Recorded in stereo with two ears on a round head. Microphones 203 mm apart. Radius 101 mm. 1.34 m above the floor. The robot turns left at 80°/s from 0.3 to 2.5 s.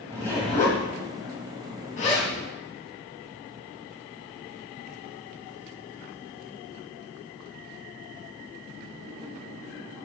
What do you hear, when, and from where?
0.1 s a zipper: 10° left (ahead or behind), 1.6 m; by 2.3 s 5° left (ahead or behind), 1.6 m